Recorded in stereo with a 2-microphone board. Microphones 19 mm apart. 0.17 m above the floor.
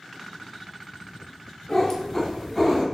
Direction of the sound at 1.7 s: 30° left (ahead or behind).